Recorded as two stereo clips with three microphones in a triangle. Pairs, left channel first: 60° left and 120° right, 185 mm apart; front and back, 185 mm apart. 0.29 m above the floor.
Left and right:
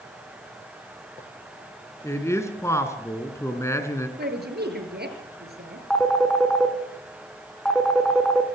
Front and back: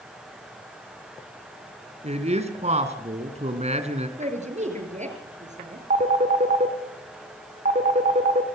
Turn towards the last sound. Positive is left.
turn(degrees=145)